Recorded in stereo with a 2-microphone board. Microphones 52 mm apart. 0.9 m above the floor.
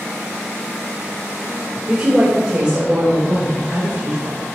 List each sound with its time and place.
1.9 s a woman speaking: 25° right (ahead or behind), 2.5 m; by 4.5 s 45° right (ahead or behind), 5.5 m